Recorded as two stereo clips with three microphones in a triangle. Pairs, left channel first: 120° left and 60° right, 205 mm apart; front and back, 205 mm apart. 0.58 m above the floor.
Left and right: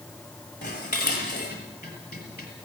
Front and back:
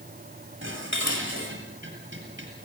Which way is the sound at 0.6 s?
160° left.